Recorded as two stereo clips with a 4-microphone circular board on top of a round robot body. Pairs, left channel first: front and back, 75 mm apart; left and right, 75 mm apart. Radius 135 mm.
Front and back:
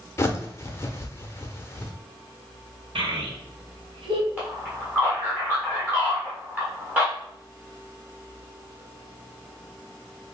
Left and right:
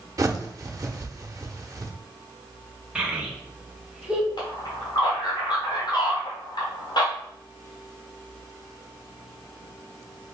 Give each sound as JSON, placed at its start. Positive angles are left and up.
{"t": 0.2, "sound": "a bird", "azimuth_deg": -50, "distance_m": 0.9}
{"t": 3.0, "sound": "a child speaking", "azimuth_deg": -170, "distance_m": 1.2}
{"t": 4.4, "sound": "a man speaking", "azimuth_deg": 110, "distance_m": 1.3}